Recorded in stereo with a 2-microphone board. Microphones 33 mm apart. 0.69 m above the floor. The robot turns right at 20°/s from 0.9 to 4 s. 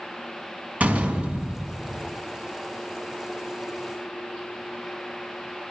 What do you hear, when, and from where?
0.8 s a door slam: 50° right (ahead or behind), 4.5 m; by 2.0 s 30° right (ahead or behind), 4.5 m